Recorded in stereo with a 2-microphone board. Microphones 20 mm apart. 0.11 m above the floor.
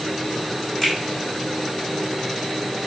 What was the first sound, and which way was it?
A finger snap, 10° left (ahead or behind).